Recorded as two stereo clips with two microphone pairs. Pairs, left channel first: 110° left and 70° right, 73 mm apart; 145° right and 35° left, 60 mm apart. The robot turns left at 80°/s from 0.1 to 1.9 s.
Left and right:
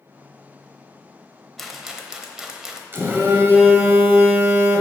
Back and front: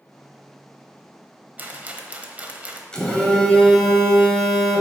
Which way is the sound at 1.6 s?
25° left.